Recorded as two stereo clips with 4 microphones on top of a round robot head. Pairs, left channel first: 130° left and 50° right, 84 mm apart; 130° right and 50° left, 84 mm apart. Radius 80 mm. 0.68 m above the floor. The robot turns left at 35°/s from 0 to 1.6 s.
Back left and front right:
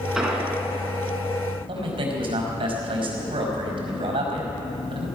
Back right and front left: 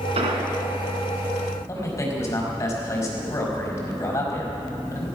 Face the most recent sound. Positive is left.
turn(degrees=-65)